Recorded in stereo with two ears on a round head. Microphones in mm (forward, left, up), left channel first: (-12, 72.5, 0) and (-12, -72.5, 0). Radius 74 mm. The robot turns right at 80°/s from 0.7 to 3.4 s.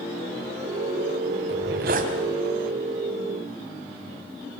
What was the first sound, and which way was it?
A zipper, 95° right.